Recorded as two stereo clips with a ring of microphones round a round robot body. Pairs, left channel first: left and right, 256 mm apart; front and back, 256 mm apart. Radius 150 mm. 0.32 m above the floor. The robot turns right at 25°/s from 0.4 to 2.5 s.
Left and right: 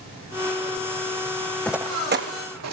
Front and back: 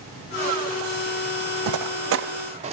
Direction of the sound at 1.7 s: 175° left.